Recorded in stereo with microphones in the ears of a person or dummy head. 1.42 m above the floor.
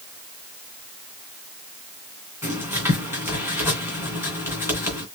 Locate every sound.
2.4 s writing: 10° right (ahead or behind), 2.5 m